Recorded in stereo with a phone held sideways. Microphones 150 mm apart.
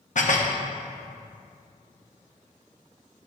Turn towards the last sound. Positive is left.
turn(degrees=60)  # may be behind; listen again after turning